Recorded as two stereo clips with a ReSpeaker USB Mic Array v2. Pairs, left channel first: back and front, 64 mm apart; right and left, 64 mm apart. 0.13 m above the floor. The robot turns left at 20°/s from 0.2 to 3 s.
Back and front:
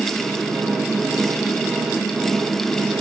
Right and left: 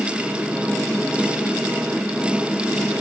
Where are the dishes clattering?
I don't hear dishes clattering.